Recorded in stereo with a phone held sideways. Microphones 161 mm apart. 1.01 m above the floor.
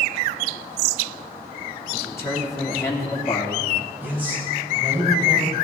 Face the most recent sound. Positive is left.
turn(degrees=-10)  # may be behind; listen again after turning